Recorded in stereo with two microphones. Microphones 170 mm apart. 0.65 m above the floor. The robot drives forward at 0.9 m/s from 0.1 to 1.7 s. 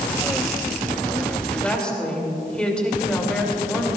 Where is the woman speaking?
5° left (ahead or behind), 3 m.